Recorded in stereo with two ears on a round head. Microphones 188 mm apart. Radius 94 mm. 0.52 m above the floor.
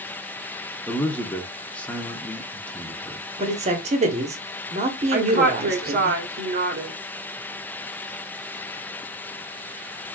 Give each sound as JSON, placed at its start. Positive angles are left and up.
{"t": 0.9, "sound": "a man speaking", "side_deg": 5, "distance_m": 0.7}
{"t": 3.4, "sound": "a man speaking", "side_deg": -30, "distance_m": 0.9}
{"t": 5.1, "sound": "a woman speaking", "side_deg": -40, "distance_m": 0.9}